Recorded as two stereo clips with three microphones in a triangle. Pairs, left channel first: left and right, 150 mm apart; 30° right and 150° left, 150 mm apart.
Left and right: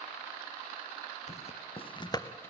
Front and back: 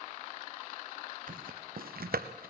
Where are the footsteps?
130° left, 1.9 m; by 2.5 s 165° left, 1.2 m.